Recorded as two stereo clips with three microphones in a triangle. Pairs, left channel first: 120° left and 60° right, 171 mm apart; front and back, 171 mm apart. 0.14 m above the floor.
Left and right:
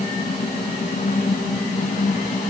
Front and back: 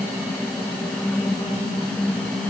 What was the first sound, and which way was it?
Only background noise.